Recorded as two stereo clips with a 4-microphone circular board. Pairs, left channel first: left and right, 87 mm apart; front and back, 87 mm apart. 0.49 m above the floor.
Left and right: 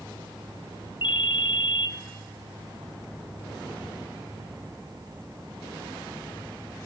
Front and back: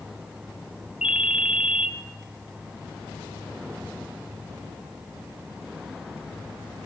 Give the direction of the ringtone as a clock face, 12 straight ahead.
9 o'clock.